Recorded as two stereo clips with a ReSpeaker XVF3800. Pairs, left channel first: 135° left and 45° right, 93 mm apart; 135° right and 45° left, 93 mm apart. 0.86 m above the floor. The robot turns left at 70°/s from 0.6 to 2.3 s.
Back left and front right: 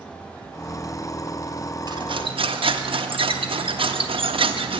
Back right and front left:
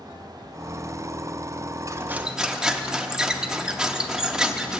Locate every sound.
1.9 s cutlery clinking: 10° right, 0.5 m; by 4.8 s 40° right, 0.5 m